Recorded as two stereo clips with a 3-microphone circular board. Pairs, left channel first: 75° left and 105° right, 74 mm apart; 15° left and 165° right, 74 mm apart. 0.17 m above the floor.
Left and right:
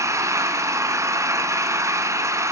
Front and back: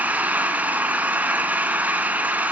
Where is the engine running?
105° right, 1.2 m.